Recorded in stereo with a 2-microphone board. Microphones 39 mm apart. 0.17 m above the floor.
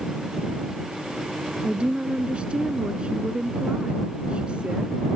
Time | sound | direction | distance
1.6 | a woman speaking | 30° right (ahead or behind) | ?